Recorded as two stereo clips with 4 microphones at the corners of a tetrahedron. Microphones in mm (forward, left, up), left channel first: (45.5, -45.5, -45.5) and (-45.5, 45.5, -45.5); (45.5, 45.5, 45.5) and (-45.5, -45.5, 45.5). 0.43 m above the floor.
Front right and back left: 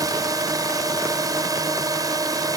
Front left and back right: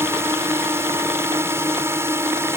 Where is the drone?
170° left.